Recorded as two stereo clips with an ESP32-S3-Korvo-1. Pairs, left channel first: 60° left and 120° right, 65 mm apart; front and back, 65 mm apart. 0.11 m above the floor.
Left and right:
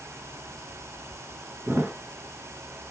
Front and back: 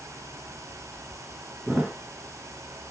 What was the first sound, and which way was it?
A thud, 120° right.